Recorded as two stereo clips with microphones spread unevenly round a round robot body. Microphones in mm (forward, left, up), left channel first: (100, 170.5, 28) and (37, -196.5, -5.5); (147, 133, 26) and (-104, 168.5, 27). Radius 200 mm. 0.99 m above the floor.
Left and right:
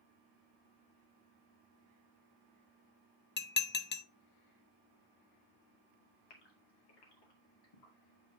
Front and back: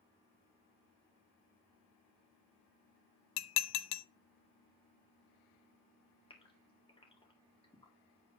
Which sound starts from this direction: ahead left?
A gasp, at 6.3 s.